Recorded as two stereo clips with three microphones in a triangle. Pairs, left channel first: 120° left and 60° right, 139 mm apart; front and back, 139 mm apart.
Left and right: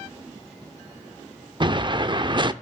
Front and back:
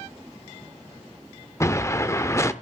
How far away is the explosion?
About 0.6 m.